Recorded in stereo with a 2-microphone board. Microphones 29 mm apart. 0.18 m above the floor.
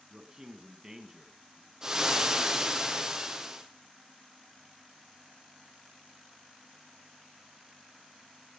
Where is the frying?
20° right (ahead or behind), 3 m.